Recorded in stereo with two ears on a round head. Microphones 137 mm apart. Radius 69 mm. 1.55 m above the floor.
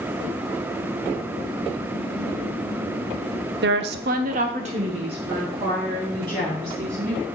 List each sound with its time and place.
3.6 s a woman speaking: 70° right (ahead or behind), 0.6 m; by 7.2 s 30° right (ahead or behind), 3.5 m